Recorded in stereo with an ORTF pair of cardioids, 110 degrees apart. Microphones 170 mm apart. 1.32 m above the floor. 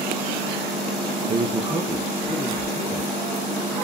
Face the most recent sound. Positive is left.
turn(degrees=30)